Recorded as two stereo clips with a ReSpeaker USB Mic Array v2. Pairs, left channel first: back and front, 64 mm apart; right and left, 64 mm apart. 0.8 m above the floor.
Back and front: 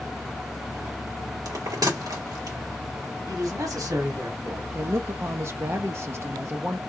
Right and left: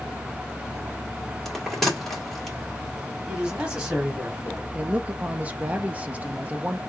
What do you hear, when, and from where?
1.4 s a bell: 5° right, 2.0 m
3.3 s a man speaking: 15° left, 2.5 m
4.7 s a woman speaking: 30° left, 0.6 m